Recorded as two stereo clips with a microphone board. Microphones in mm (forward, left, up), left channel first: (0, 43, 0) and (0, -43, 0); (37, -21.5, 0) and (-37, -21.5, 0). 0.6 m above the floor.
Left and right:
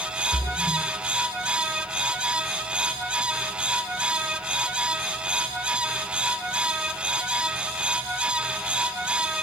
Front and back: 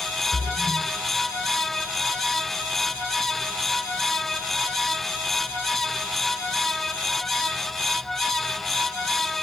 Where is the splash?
140° left, 1.6 m.